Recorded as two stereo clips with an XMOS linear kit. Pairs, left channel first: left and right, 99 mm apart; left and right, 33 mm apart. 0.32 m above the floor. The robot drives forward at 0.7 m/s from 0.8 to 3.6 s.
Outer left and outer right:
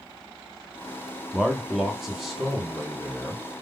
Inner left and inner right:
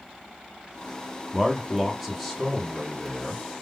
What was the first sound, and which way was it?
A man speaking, 5° right (ahead or behind).